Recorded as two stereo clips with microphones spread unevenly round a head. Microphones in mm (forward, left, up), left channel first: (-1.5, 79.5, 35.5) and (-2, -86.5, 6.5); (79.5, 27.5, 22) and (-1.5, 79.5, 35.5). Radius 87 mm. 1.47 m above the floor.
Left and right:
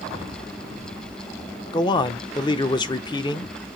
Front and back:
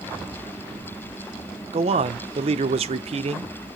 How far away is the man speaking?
About 0.8 m.